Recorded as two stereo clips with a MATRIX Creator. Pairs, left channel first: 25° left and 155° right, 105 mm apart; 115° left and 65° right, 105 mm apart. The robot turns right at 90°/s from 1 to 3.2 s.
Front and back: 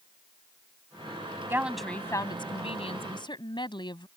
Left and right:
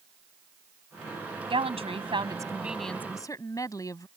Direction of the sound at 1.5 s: 95° right.